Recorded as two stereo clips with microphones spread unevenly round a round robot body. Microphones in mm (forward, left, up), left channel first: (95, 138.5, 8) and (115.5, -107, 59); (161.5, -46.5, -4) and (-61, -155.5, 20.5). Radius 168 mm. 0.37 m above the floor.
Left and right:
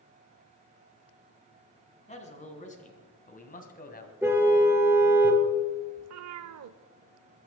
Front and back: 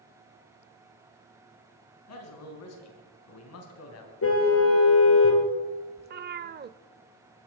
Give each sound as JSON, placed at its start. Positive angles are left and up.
{"t": 2.1, "sound": "a man speaking", "azimuth_deg": 35, "distance_m": 4.0}
{"t": 4.2, "sound": "a car horn", "azimuth_deg": -5, "distance_m": 3.0}
{"t": 6.0, "sound": "a cat meowing", "azimuth_deg": -105, "distance_m": 0.7}